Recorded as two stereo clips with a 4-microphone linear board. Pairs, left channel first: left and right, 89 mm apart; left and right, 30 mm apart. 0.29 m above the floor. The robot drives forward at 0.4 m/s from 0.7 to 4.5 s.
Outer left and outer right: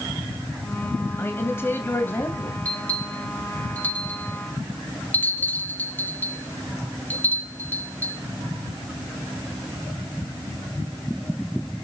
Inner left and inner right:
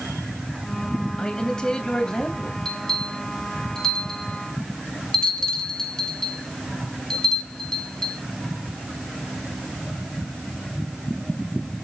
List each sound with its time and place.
1.2 s a man speaking: 25° left (ahead or behind), 1.9 m; by 2.5 s 20° left (ahead or behind), 2.5 m
2.6 s a bell: 15° left (ahead or behind), 4 m; by 8.2 s 20° left (ahead or behind), 3 m